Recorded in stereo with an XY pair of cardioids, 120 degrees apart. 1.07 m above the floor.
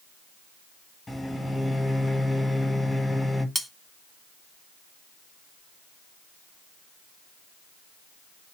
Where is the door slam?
I don't hear a door slam.